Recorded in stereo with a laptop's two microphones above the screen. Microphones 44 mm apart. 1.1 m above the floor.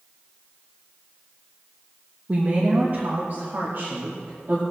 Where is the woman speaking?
35° right (ahead or behind), 1.5 m; by 4.6 s 60° right (ahead or behind), 3 m.